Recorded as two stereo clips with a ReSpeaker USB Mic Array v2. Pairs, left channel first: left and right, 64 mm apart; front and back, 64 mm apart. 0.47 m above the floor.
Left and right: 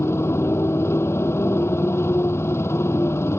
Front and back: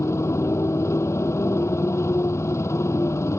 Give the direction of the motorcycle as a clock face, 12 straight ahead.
11 o'clock.